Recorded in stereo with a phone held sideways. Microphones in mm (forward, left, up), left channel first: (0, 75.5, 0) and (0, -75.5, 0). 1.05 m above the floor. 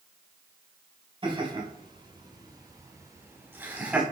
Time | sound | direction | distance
1.2 | laughter | 40° right (ahead or behind) | 5.5 m